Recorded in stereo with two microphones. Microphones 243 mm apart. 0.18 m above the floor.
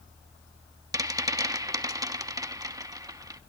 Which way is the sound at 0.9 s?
15° right (ahead or behind).